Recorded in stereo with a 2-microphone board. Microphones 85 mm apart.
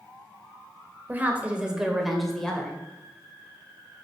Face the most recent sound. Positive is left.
turn(degrees=10)  # may be behind; listen again after turning